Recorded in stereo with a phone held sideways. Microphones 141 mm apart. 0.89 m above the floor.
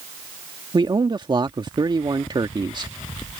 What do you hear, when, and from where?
0.7 s a man speaking: 35° right (ahead or behind)